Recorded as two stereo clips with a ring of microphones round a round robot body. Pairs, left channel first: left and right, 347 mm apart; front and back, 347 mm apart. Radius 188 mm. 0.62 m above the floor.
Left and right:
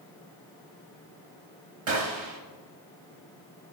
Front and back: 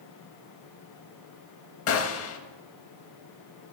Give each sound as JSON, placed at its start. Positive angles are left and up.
{"t": 1.9, "sound": "a gunshot", "azimuth_deg": -45, "distance_m": 0.6}